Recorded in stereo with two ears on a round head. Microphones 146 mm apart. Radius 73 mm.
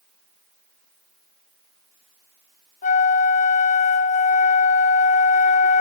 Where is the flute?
45° left (ahead or behind), 0.5 m.